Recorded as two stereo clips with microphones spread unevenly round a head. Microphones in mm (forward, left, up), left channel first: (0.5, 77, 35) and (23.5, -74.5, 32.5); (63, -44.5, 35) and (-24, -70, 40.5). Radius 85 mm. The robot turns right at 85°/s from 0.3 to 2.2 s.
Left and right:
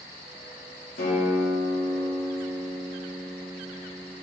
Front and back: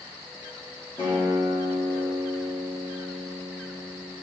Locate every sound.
1.0 s a guitar: 75° left, 2 m; by 4.1 s 175° left, 2 m